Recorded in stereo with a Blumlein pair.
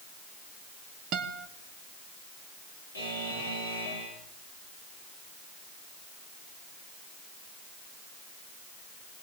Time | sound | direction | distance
1.1 | a guitar | 35° right | 2 m
2.9 | a buzzer | 65° left | 9 m